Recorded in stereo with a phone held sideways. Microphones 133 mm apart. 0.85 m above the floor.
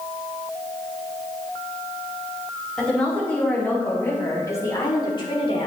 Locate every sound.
2.8 s a woman speaking: 5° left (ahead or behind), 4 m; by 5.7 s 45° left (ahead or behind), 2.5 m